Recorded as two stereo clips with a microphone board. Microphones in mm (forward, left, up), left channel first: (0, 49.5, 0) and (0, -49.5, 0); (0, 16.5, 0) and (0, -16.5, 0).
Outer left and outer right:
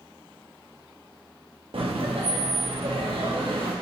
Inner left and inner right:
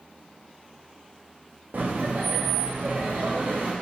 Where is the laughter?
65° right (ahead or behind), 0.6 m.